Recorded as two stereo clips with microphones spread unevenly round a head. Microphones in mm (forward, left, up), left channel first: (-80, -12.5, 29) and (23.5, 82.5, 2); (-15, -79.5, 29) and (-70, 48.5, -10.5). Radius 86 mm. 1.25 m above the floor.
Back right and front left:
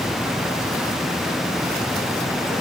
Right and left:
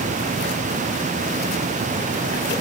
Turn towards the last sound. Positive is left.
No sound to turn to.